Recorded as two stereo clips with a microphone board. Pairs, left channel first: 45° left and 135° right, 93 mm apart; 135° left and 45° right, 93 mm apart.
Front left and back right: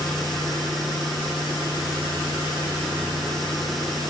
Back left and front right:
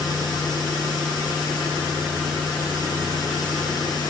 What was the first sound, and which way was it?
Only background noise.